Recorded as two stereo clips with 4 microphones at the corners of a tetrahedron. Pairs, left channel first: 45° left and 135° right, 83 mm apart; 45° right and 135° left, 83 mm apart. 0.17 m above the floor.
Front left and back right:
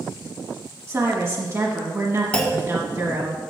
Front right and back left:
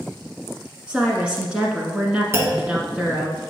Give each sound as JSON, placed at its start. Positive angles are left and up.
{"t": 0.9, "sound": "a woman speaking", "azimuth_deg": -155, "distance_m": 1.3}
{"t": 2.3, "sound": "a clunk", "azimuth_deg": 115, "distance_m": 1.4}